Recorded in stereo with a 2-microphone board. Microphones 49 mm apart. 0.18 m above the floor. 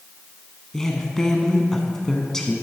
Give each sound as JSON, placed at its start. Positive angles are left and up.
{"t": 0.7, "sound": "a woman speaking", "side_deg": 10, "distance_m": 1.2}